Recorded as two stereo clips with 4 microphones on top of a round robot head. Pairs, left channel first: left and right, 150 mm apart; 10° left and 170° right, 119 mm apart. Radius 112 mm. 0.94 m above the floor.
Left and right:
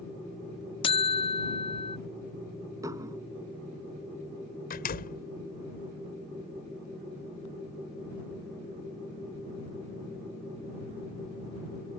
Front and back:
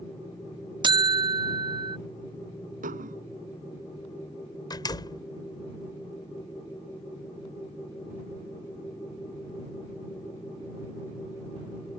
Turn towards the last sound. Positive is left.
turn(degrees=65)